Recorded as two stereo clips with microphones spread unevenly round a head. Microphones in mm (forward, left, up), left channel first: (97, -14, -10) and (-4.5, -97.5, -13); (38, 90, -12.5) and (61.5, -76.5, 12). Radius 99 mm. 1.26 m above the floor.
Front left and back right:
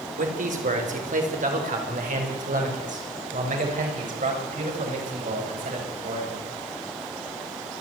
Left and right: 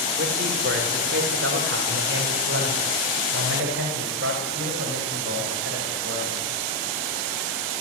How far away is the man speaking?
About 5 m.